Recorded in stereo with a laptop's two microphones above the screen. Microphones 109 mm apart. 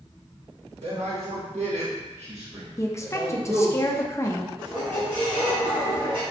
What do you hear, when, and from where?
0.8 s a man speaking: 75° right (ahead or behind), 1.4 m
2.8 s a woman speaking: 25° left (ahead or behind), 0.5 m
4.6 s a squeak: 50° right (ahead or behind), 1.6 m